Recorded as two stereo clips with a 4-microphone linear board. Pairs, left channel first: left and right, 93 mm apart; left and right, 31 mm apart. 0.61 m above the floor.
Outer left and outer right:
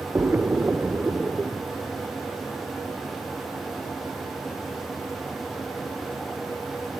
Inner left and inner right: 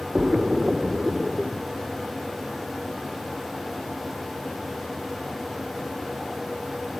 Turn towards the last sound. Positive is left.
turn(degrees=-20)  # may be behind; listen again after turning